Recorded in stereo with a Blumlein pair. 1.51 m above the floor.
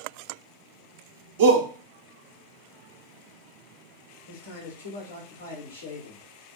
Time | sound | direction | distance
1.4 | a shout | 55° right | 0.7 m
4.3 | a man speaking | 65° left | 1.1 m